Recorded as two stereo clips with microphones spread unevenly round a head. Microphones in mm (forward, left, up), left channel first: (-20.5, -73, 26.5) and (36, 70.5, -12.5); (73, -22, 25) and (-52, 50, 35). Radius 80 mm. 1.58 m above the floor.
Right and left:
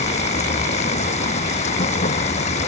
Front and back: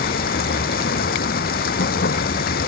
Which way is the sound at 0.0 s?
65° right.